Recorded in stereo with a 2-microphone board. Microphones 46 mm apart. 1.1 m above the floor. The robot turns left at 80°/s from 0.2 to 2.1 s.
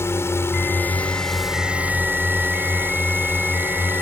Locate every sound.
0.0 s a drone: 95° left; by 4.0 s 55° right